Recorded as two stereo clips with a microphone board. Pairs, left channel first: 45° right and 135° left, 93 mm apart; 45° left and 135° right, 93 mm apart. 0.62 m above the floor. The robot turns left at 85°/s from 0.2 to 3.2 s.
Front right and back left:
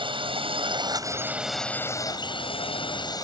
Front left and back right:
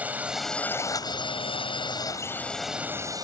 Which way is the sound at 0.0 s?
155° left.